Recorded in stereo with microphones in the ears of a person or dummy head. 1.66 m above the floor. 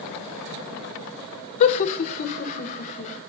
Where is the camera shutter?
No camera shutter in this recording.